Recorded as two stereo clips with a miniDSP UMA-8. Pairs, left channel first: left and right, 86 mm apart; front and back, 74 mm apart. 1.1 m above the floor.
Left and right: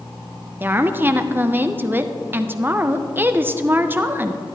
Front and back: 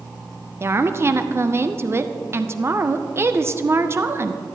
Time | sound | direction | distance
0.6 | a woman speaking | 145° right | 0.5 m